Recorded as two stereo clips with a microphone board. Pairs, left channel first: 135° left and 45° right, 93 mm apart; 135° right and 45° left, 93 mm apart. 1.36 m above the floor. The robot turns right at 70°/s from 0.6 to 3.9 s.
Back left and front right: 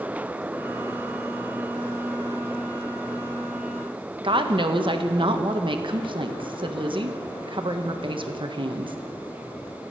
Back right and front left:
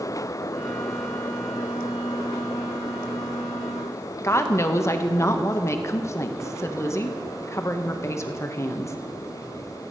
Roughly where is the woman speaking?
Right.